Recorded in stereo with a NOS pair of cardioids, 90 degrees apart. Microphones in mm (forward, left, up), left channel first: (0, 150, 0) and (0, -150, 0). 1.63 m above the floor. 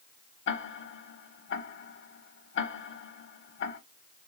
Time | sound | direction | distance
0.5 | ticking | 40° left | 0.8 m